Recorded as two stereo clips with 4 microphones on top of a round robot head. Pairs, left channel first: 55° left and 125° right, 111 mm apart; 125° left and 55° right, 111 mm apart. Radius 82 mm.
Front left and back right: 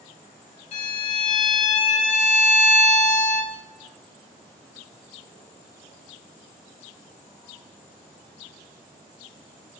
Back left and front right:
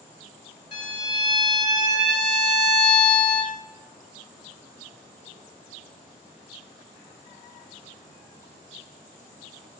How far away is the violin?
About 1.6 m.